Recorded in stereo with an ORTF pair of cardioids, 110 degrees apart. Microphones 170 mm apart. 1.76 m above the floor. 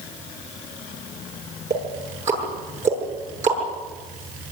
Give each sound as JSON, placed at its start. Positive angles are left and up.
{"t": 1.7, "sound": "ticking", "azimuth_deg": -45, "distance_m": 9.0}